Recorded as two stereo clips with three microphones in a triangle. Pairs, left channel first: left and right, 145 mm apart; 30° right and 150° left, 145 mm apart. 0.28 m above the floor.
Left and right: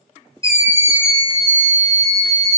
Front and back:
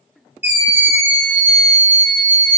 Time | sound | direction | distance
0.4 | a scream | 100° left | 1.0 m